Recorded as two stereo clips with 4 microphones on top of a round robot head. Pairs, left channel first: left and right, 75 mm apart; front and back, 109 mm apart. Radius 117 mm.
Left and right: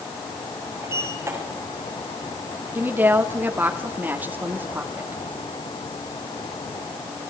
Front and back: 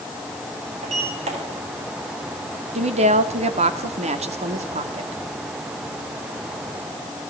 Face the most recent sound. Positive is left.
turn(degrees=-160)